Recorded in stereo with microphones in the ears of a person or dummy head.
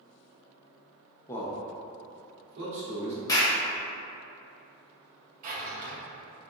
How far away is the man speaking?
About 0.5 m.